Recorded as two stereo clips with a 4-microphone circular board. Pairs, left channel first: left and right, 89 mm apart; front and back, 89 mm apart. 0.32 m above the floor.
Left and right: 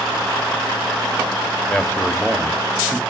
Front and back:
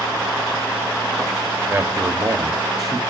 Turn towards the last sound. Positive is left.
turn(degrees=-170)